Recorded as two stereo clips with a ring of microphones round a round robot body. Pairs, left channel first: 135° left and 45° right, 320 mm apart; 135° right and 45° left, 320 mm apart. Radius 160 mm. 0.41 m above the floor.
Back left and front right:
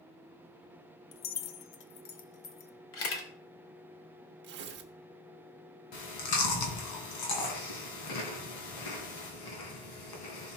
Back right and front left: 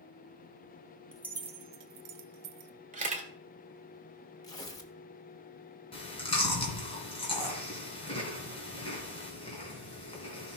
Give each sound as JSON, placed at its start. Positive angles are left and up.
{"t": 1.1, "sound": "keys jangling", "azimuth_deg": 140, "distance_m": 0.7}
{"t": 2.9, "sound": "a camera shutter", "azimuth_deg": 105, "distance_m": 1.9}
{"t": 4.4, "sound": "tearing paper", "azimuth_deg": -65, "distance_m": 1.1}
{"t": 5.9, "sound": "chewing", "azimuth_deg": 150, "distance_m": 3.0}